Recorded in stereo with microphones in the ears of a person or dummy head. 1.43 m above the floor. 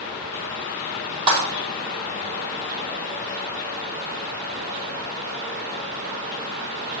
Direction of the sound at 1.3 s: 35° right (ahead or behind).